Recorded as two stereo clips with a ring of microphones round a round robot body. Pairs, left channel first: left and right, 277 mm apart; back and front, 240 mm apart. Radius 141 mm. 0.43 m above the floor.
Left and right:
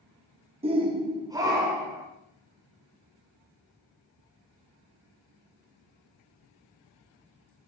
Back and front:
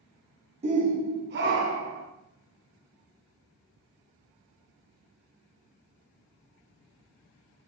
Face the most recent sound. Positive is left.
turn(degrees=-10)